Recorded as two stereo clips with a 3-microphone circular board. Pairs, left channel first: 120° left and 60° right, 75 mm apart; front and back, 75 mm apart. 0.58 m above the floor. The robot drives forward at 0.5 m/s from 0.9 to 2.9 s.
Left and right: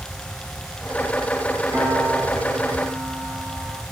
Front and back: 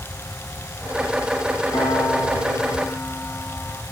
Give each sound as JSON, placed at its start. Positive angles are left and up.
{"t": 1.7, "sound": "a piano", "azimuth_deg": 25, "distance_m": 4.5}